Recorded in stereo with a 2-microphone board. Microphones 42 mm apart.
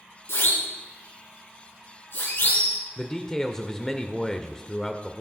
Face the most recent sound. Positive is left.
turn(degrees=15)  # may be behind; listen again after turning